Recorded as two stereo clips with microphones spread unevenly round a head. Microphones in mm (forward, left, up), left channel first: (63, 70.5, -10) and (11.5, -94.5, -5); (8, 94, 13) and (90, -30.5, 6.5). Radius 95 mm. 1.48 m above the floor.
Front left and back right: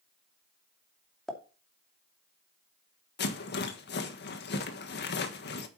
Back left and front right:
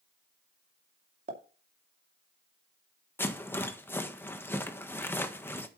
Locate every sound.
1.3 s a pop: 15° right, 2.5 m
3.2 s a rattle: 45° left, 1.5 m